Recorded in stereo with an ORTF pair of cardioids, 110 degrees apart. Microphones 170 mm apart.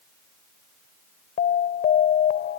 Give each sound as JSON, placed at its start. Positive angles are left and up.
{"t": 1.4, "sound": "an alarm", "azimuth_deg": 55}